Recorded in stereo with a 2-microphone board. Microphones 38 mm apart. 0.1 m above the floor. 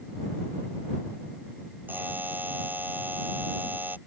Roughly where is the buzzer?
Right.